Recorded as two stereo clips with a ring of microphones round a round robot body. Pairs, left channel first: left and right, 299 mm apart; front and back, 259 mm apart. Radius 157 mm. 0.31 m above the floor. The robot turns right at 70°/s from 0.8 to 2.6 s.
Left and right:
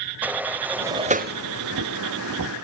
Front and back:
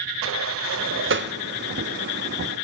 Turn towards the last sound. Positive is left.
turn(degrees=-45)